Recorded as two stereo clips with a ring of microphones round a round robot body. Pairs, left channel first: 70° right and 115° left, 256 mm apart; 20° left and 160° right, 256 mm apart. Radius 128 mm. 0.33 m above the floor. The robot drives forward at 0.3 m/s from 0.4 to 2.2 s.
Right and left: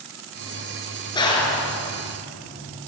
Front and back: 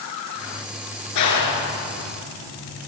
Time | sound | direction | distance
1.1 | a clap | 5° left | 5.5 m